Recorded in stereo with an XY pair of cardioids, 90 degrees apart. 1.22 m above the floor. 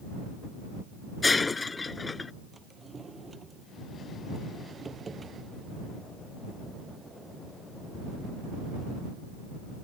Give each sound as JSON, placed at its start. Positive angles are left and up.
{"t": 1.2, "sound": "breaking glass", "azimuth_deg": 30}
{"t": 2.5, "sound": "a drawer", "azimuth_deg": -35}